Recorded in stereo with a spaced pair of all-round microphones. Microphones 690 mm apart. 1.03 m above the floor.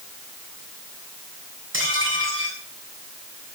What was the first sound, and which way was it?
Dishes clattering, 15° right (ahead or behind).